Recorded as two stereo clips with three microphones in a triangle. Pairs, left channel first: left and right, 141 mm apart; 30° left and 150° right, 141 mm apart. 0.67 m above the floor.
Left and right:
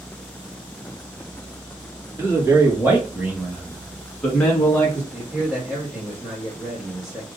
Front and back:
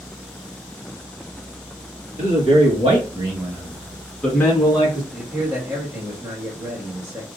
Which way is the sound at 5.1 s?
170° right.